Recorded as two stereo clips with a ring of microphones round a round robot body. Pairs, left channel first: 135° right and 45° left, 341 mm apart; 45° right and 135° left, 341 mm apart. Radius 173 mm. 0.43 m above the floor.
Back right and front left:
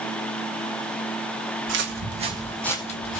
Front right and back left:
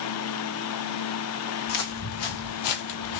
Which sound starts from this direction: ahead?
Footsteps, at 1.7 s.